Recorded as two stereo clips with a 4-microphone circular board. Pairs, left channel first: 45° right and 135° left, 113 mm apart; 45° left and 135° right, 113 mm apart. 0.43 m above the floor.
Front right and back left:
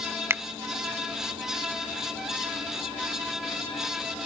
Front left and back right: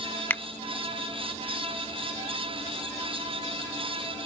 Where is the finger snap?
95° left.